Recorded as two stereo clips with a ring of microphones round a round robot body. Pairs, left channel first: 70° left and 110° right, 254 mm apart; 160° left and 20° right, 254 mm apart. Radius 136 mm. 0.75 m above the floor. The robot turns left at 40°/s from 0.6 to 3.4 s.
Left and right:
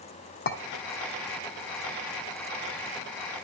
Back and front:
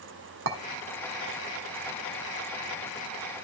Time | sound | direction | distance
0.5 | a clink | 20° left | 1.3 m